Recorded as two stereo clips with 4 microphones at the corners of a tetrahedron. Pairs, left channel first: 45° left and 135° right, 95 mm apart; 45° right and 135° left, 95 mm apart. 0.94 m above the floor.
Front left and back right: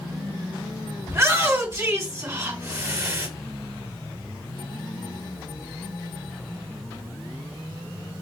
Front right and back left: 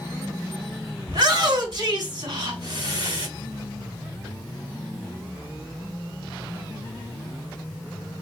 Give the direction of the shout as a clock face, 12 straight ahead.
6 o'clock.